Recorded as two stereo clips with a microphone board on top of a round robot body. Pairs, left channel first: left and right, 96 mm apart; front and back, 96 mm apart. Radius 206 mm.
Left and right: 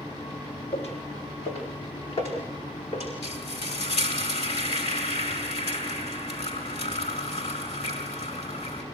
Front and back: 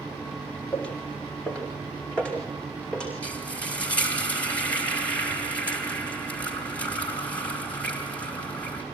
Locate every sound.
0.7 s footsteps: 80° left, 3 m
3.2 s frying: 75° left, 4.5 m